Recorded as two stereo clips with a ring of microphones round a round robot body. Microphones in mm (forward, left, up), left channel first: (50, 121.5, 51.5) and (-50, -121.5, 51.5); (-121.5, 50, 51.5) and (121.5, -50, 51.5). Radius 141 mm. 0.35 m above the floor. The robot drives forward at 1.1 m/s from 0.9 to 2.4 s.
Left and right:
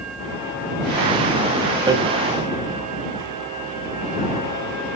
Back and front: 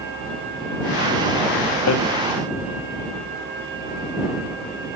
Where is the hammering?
175° left, 1.2 m.